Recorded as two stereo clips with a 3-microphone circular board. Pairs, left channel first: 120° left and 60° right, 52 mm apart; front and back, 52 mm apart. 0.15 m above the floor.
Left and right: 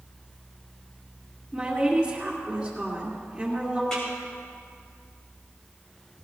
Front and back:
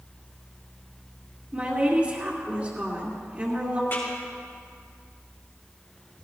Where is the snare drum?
45° left, 5 m.